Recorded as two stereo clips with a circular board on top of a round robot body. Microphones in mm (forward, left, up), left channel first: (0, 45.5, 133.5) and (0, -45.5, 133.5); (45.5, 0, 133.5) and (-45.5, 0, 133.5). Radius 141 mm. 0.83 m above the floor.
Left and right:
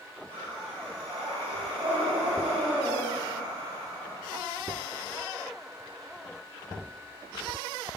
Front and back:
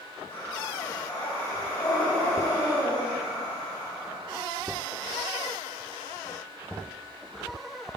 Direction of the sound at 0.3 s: 65° right.